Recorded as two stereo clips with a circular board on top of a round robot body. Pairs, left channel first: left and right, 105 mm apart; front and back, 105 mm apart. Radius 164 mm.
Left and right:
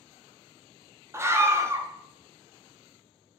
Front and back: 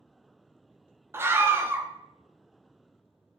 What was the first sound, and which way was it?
A scream, 130° right.